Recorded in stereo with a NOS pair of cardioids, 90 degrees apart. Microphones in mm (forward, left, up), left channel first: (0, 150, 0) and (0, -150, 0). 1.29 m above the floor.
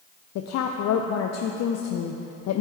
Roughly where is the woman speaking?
Ahead left.